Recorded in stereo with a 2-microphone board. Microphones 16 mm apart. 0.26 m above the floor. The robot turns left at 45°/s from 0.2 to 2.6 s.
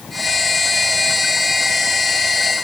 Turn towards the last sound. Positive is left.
No sound to turn to.